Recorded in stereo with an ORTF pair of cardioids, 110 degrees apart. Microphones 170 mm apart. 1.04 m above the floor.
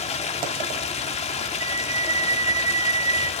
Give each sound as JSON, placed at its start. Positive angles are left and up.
{"t": 0.0, "sound": "running water", "azimuth_deg": 40, "distance_m": 2.5}
{"t": 1.6, "sound": "a flute", "azimuth_deg": -25, "distance_m": 2.5}